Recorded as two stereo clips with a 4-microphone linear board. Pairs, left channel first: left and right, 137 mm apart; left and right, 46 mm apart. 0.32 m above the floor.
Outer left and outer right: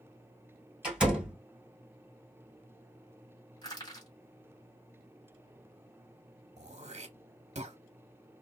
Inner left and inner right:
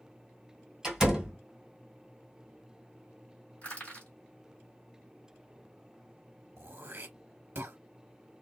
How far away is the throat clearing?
About 0.6 m.